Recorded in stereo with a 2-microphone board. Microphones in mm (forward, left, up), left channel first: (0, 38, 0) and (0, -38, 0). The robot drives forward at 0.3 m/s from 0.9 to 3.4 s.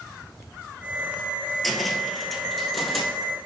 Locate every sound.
1.6 s a cupboard door: centre (ahead or behind), 0.7 m